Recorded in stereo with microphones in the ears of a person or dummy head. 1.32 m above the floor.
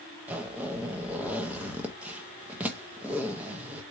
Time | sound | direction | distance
0.3 | a zipper | centre (ahead or behind) | 0.8 m